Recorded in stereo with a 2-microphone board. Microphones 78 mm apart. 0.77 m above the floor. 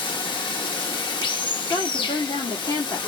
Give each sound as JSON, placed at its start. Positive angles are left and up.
{"t": 0.0, "sound": "running water", "side_deg": 85, "distance_m": 0.8}
{"t": 1.7, "sound": "a woman speaking", "side_deg": 70, "distance_m": 1.6}